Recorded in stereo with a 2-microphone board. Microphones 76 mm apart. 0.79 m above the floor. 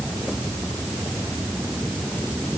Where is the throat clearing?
I don't hear throat clearing.